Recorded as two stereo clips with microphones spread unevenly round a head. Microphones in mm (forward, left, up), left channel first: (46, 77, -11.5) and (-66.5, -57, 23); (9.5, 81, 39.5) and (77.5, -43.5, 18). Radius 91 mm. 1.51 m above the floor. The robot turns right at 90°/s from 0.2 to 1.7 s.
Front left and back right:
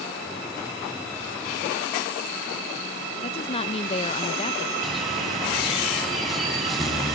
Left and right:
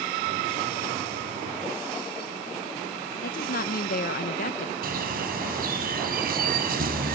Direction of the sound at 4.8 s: 40° right.